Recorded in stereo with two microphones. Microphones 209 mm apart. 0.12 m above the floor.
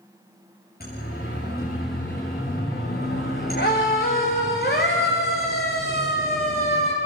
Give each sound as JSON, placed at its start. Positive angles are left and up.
{"t": 0.8, "sound": "a siren", "side_deg": 50, "distance_m": 8.0}